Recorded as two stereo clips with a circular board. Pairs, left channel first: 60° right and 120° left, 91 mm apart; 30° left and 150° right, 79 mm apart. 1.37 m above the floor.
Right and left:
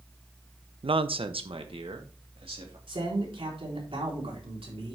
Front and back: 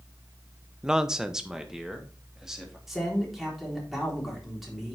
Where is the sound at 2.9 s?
120° left, 4 m.